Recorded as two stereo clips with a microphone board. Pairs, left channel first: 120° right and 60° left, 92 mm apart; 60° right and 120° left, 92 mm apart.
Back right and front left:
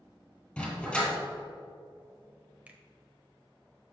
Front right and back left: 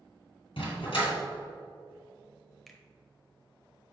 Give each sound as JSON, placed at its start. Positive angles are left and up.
{"t": 0.6, "sound": "a dog barking", "azimuth_deg": -40, "distance_m": 2.5}
{"t": 2.7, "sound": "a finger snap", "azimuth_deg": 20, "distance_m": 0.9}